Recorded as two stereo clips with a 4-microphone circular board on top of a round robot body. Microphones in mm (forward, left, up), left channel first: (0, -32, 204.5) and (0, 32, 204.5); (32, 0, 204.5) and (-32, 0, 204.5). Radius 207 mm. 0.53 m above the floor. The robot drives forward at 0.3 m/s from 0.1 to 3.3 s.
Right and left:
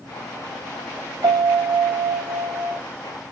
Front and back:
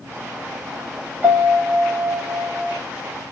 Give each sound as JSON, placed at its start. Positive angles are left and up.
{"t": 1.2, "sound": "a piano", "azimuth_deg": 120, "distance_m": 0.5}